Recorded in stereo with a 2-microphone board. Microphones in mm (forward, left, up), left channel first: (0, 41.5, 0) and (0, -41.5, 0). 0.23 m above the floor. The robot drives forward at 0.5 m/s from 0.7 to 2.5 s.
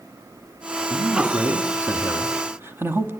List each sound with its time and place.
0.9 s a man speaking: 20° right (ahead or behind), 2.5 m; by 3.1 s 25° right (ahead or behind), 1.9 m